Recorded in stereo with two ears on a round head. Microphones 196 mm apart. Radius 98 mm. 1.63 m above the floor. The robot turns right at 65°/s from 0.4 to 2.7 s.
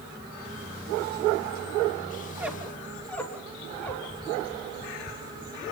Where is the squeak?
15° right (ahead or behind), 2.5 m; by 5.5 s 5° left (ahead or behind), 2.5 m.